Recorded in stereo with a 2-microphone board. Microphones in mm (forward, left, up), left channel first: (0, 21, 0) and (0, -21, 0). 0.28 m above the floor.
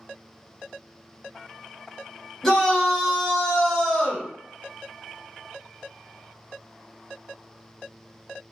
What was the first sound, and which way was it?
A shout, 15° left (ahead or behind).